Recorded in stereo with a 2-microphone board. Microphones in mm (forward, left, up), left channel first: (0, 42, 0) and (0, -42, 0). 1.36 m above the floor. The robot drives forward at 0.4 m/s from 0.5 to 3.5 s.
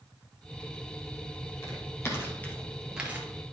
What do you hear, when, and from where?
1.6 s footsteps: 40° left (ahead or behind), 2.5 m; by 3.3 s 25° right (ahead or behind), 1.6 m